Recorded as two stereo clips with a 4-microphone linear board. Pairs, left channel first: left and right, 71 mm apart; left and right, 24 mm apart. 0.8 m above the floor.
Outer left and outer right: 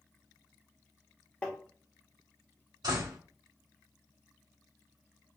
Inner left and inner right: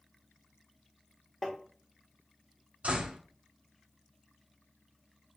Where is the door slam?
75° right (ahead or behind), 2.5 m.